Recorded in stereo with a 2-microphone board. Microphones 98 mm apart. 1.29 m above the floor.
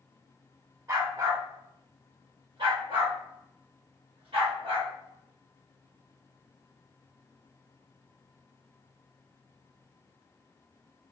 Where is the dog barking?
35° right (ahead or behind), 1.3 m; by 4.9 s 75° right (ahead or behind), 3 m.